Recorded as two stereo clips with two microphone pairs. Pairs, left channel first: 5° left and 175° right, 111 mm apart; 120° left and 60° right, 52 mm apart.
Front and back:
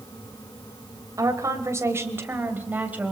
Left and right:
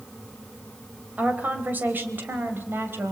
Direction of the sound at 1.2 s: 115° right.